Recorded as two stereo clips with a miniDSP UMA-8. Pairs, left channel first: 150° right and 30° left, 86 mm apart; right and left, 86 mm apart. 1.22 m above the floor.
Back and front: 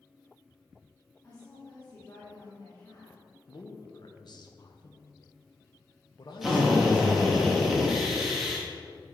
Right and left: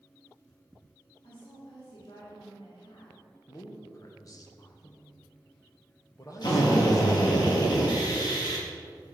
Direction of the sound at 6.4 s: 60° right.